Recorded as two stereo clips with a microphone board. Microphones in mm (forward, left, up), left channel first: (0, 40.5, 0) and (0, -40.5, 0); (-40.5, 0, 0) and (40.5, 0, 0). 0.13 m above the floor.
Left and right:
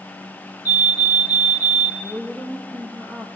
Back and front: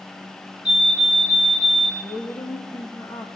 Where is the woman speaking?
160° left, 4.5 m.